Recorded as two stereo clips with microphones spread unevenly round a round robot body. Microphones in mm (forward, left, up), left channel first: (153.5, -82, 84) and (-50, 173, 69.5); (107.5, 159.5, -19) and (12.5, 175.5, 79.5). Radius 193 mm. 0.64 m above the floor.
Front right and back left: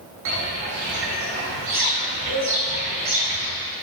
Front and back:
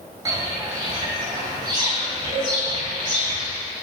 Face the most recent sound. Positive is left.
turn(degrees=-160)